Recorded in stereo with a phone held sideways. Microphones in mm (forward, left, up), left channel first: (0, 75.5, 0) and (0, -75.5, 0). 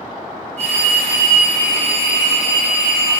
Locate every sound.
0.6 s a phone ringing: 50° right (ahead or behind), 3.5 m